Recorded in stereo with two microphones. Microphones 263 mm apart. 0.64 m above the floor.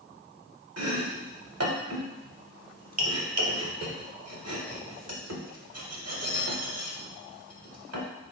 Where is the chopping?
70° right (ahead or behind), 0.8 m.